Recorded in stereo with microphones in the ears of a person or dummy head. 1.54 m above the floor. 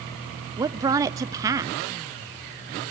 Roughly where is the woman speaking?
Centre.